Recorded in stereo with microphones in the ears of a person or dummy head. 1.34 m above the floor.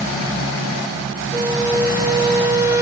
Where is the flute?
15° right (ahead or behind), 1.8 m.